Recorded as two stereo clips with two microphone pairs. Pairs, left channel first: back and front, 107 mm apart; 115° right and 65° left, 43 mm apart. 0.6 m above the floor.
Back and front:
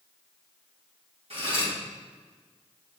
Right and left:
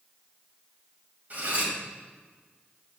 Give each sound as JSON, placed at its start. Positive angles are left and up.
{"t": 1.3, "sound": "cutlery clinking", "azimuth_deg": 15, "distance_m": 2.0}